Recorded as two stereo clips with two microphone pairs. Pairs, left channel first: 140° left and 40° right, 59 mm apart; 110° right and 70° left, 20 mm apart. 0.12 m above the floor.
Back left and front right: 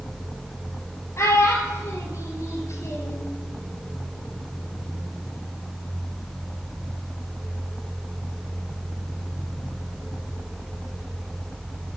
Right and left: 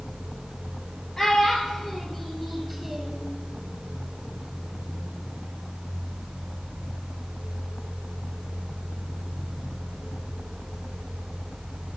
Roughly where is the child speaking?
Behind.